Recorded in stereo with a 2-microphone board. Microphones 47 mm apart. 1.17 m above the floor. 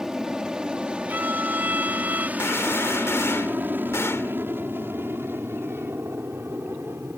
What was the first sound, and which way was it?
An aircraft, 15° right (ahead or behind).